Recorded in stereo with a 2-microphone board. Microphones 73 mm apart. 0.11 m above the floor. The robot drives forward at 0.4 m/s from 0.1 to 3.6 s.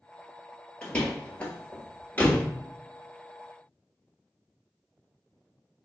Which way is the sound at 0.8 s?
15° left (ahead or behind).